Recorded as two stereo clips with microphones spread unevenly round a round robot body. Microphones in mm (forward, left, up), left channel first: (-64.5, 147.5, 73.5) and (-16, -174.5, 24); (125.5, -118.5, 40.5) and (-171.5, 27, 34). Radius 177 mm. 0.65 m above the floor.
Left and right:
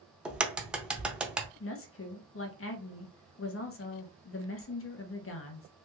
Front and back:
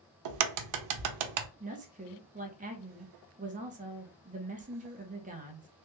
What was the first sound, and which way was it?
A crack, 170° right.